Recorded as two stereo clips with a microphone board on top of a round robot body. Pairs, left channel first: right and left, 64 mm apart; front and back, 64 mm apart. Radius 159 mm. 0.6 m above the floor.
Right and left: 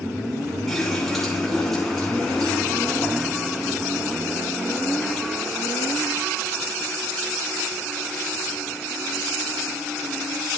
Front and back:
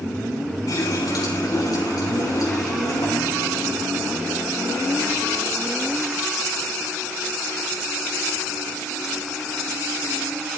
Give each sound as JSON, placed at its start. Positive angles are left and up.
{"t": 0.7, "sound": "a running tap", "azimuth_deg": -5, "distance_m": 6.0}